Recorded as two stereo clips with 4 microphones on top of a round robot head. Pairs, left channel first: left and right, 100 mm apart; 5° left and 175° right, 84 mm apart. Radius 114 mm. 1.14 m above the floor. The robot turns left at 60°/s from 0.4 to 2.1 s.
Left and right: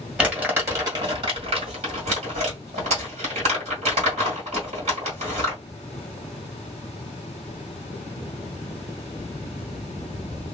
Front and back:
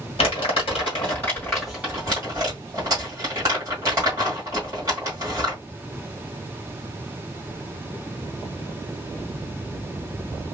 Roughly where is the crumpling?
Ahead.